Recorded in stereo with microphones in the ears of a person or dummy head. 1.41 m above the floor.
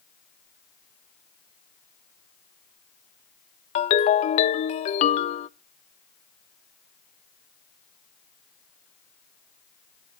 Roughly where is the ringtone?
Left.